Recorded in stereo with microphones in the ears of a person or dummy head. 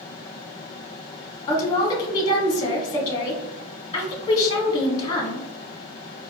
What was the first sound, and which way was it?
A woman speaking, 20° left (ahead or behind).